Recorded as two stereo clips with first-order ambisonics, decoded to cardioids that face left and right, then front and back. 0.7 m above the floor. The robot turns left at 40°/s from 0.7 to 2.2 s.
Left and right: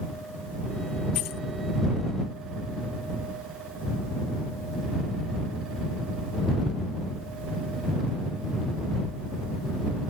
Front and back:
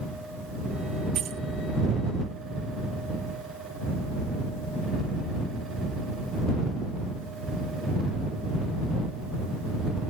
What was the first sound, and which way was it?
Keys jangling, 125° left.